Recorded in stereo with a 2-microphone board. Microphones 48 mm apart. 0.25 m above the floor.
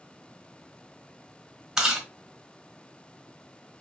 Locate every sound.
1.8 s chewing: 10° right (ahead or behind), 1.4 m